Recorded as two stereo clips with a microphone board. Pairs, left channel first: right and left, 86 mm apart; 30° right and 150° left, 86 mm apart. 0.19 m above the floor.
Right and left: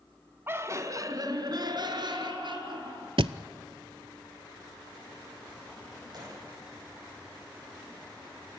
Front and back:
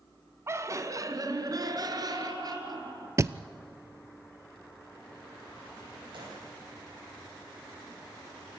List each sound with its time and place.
0.5 s laughter: 130° left, 1.4 m; by 3.1 s 110° left, 4 m
3.2 s a thud: 95° left, 0.5 m
6.1 s a gunshot: 130° left, 8.5 m